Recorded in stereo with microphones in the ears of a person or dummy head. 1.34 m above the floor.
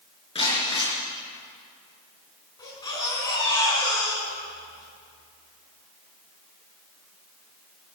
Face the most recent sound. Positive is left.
turn(degrees=20)  # may be behind; listen again after turning